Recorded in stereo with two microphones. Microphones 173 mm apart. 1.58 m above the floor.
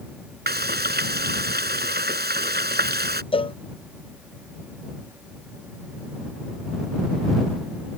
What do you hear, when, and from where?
0.5 s frying: 65° right (ahead or behind)
3.3 s a cowbell: 30° left (ahead or behind)